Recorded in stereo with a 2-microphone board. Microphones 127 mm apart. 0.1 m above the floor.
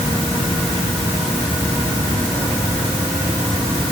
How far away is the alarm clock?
I don't hear an alarm clock.